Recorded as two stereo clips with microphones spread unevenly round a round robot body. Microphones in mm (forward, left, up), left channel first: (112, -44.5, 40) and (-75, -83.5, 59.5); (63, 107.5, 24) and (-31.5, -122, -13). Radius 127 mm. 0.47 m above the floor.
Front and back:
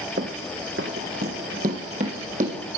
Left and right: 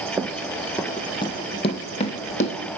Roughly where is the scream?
I don't hear a scream.